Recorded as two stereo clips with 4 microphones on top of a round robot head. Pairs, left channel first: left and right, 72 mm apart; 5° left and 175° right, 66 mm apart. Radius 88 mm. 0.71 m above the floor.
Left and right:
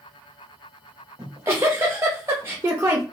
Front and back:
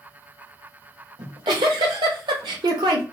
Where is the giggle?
155° right, 0.6 m.